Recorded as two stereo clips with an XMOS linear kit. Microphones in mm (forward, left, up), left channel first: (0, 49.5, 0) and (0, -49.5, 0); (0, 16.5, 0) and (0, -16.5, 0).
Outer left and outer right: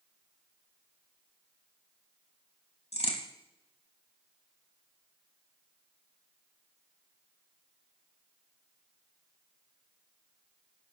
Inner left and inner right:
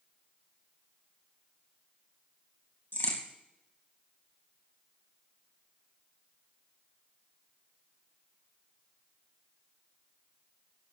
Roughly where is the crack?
Left.